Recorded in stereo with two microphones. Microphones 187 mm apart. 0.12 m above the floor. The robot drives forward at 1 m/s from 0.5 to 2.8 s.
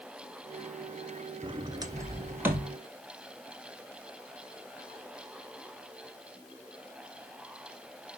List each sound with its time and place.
1.4 s a sliding door: 30° right (ahead or behind), 0.5 m; by 2.7 s 10° right (ahead or behind), 1.5 m